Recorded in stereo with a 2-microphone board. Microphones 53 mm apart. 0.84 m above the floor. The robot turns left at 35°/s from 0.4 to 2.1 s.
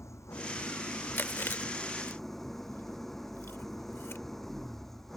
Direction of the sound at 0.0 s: 65° left.